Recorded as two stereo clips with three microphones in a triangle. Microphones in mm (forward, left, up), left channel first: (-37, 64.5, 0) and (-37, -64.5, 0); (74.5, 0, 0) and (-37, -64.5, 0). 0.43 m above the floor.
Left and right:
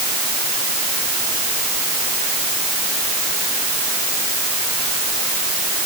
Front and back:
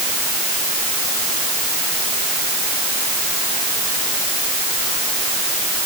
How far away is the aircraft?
I don't hear an aircraft.